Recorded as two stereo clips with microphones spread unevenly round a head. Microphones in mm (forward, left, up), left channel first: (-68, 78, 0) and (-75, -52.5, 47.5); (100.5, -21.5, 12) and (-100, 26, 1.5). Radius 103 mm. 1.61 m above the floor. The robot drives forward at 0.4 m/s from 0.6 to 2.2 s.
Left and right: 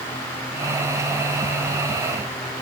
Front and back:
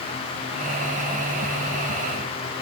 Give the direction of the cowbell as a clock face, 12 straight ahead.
I don't hear a cowbell.